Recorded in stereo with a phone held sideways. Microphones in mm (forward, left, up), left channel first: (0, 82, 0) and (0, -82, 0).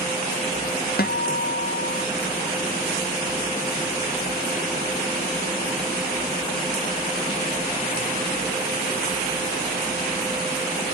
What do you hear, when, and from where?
1.0 s a guitar: 70° left (ahead or behind), 0.7 m